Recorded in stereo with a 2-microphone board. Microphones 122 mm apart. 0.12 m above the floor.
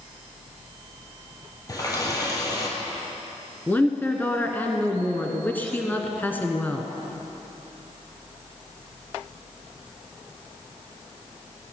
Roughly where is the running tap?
Left.